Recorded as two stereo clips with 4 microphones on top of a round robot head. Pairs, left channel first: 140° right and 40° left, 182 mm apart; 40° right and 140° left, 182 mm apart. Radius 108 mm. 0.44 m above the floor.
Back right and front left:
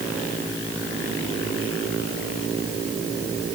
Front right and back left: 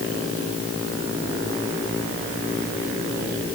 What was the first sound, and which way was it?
Only background noise.